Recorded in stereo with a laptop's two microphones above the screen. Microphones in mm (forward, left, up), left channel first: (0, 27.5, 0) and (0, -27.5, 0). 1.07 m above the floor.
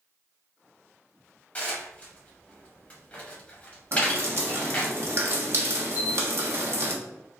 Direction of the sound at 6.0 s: 80° left.